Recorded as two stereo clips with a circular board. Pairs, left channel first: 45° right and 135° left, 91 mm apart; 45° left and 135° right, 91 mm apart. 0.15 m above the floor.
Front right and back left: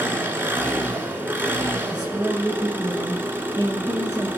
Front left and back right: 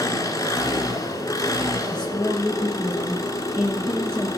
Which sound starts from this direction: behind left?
A woman speaking, at 1.9 s.